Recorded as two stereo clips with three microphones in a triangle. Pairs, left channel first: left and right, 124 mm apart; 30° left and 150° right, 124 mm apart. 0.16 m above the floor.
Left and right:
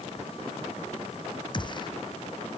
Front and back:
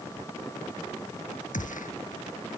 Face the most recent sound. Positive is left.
turn(degrees=35)